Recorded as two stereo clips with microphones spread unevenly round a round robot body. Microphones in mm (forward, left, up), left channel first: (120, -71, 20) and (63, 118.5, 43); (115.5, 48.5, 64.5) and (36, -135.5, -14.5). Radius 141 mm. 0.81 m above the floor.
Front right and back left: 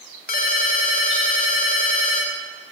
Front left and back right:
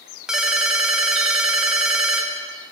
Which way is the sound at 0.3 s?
25° right.